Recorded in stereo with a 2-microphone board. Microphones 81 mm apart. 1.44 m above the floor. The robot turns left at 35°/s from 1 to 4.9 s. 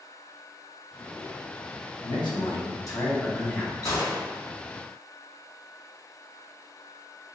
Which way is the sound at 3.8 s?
50° left (ahead or behind).